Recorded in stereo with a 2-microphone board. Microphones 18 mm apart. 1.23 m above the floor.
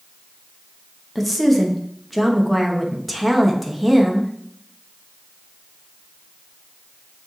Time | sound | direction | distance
1.1 | a woman speaking | centre (ahead or behind) | 1.2 m